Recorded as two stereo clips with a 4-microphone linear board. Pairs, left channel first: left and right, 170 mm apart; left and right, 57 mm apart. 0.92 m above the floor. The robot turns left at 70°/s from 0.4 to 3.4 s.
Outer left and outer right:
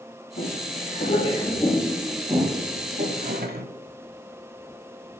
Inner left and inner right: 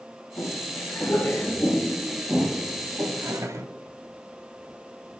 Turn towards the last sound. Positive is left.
turn(degrees=-65)  # may be behind; listen again after turning